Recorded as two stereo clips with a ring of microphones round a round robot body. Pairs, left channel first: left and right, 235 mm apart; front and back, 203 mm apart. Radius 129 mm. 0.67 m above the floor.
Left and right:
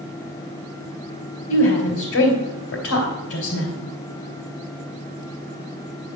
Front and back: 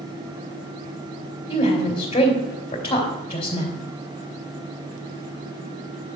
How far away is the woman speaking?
About 2.5 m.